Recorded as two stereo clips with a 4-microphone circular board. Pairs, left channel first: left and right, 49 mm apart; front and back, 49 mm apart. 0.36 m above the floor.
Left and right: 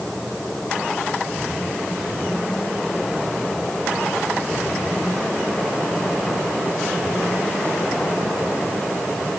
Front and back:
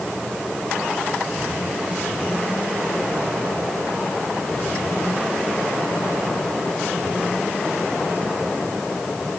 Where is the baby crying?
I don't hear a baby crying.